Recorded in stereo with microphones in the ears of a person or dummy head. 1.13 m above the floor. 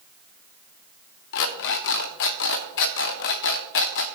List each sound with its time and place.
1.3 s an alarm clock: 60° left (ahead or behind), 0.8 m